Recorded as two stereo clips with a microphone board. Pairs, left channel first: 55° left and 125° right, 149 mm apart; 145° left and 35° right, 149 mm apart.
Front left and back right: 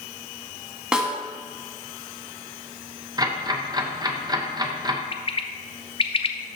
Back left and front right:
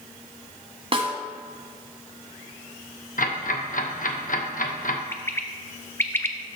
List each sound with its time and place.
0.9 s a snare drum: 40° right, 1.5 m
3.2 s ticking: 175° left, 0.9 m
5.1 s a bird: 80° left, 0.6 m